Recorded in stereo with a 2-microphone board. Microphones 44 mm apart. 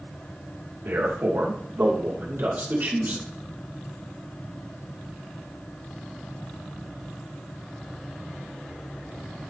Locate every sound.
0.8 s a man speaking: 75° right (ahead or behind), 2.5 m; by 3.2 s 50° right (ahead or behind), 3 m